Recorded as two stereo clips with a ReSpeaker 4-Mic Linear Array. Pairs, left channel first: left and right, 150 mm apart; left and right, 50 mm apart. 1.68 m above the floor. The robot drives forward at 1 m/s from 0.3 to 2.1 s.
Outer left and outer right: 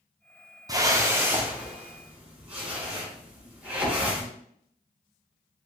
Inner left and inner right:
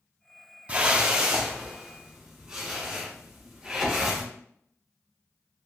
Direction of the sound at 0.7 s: 25° right (ahead or behind).